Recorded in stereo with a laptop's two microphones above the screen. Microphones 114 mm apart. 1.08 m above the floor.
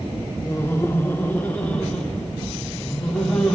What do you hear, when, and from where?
0.5 s laughter: 20° left (ahead or behind), 0.5 m; by 3.5 s 10° left (ahead or behind), 2 m